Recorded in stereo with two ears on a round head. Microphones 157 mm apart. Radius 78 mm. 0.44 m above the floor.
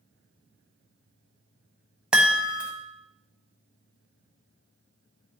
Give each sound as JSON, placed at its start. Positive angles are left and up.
{"t": 2.1, "sound": "a chime", "side_deg": -5, "distance_m": 1.0}